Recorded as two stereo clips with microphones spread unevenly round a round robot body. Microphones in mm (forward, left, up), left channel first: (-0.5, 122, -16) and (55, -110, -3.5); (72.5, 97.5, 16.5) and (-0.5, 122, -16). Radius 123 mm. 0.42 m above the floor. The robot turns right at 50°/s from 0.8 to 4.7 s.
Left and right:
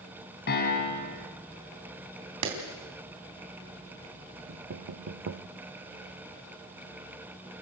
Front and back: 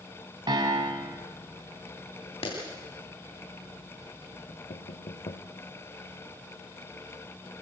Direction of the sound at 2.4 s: 70° right.